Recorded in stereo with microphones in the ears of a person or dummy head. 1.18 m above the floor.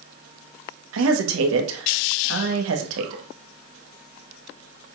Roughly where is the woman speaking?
Right.